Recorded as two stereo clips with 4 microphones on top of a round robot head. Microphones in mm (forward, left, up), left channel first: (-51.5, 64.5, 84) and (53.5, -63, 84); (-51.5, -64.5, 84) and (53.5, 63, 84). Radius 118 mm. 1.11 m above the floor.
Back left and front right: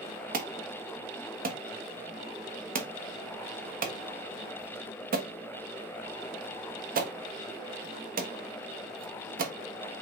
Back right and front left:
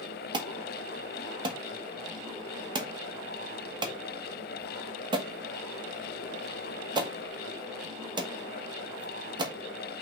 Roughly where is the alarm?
Ahead.